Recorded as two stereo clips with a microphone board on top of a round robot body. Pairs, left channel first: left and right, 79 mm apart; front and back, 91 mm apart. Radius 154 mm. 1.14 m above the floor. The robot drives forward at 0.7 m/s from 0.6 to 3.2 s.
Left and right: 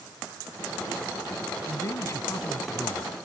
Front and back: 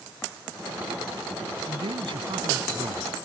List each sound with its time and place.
1.7 s a man speaking: 145° left